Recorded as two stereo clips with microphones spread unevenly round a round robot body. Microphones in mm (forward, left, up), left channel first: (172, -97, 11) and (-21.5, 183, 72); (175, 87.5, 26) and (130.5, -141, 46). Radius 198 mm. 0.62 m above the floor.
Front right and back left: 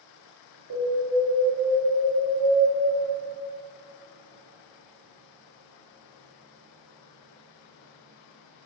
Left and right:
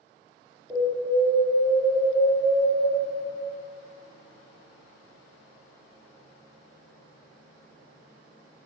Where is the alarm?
175° left, 2 m.